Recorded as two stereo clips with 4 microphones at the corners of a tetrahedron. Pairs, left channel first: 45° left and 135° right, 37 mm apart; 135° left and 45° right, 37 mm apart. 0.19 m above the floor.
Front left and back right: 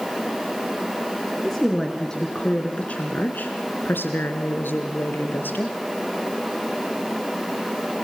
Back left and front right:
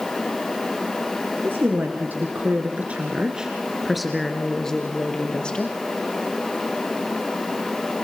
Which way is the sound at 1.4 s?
40° right.